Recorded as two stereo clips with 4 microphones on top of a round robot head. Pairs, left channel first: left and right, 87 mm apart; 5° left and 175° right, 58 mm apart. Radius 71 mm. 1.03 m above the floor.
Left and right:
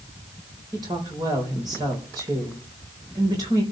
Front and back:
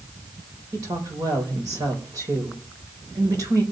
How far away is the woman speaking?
About 4.5 m.